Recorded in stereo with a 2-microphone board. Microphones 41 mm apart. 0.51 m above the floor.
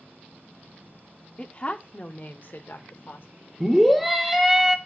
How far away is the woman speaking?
About 0.8 m.